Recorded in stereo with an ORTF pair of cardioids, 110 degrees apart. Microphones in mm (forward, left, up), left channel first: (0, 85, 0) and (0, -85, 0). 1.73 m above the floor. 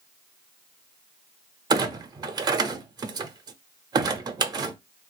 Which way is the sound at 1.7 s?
25° right.